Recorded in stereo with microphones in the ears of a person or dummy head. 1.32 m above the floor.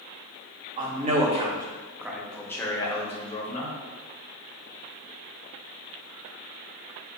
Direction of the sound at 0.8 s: 50° right (ahead or behind).